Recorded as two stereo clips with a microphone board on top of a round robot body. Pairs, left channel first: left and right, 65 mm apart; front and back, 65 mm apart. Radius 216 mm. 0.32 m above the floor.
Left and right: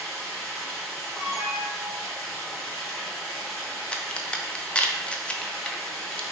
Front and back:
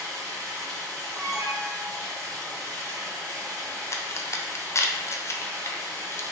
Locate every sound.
0.0 s running water: 170° left, 1.6 m
1.1 s an alarm: 175° right, 1.7 m
3.9 s a crack: 20° left, 0.6 m